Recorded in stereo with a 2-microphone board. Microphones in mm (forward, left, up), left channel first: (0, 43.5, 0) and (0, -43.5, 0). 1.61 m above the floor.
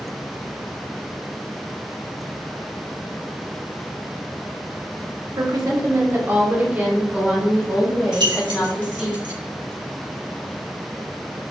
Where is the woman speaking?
50° right (ahead or behind), 1.0 m; by 9.1 s 5° right (ahead or behind), 3 m.